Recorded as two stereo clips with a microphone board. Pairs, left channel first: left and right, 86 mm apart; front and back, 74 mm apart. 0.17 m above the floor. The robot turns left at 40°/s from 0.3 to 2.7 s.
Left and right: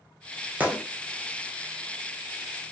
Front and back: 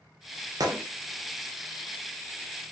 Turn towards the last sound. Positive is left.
turn(degrees=115)